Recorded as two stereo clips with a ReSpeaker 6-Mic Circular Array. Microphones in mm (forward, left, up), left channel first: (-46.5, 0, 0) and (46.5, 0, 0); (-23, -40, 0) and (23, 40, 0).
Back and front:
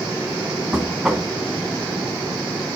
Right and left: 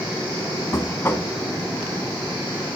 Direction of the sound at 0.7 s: 75° right.